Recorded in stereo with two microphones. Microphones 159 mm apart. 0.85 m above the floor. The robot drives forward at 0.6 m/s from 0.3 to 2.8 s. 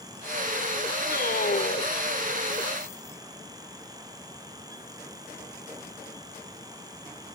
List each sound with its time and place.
1.1 s a man speaking: 75° left (ahead or behind); by 2.0 s 80° left